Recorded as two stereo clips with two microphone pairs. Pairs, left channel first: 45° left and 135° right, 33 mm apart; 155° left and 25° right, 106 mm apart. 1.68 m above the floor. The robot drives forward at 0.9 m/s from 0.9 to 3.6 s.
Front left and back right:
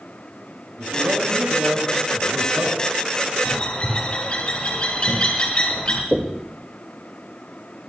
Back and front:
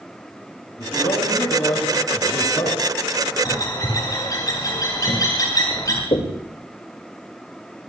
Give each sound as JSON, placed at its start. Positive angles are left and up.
{"t": 0.8, "sound": "a man speaking", "azimuth_deg": -145, "distance_m": 7.5}
{"t": 3.5, "sound": "a bird", "azimuth_deg": 100, "distance_m": 5.0}
{"t": 6.1, "sound": "knocking", "azimuth_deg": 155, "distance_m": 2.0}